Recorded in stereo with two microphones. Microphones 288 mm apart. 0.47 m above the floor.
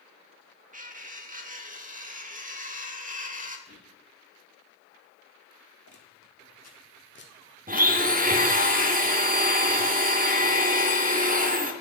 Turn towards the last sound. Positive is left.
turn(degrees=-30)  # may be behind; listen again after turning